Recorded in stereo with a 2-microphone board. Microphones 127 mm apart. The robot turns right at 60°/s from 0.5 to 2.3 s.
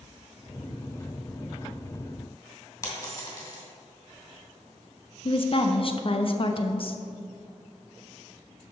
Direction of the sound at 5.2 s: 45° left (ahead or behind).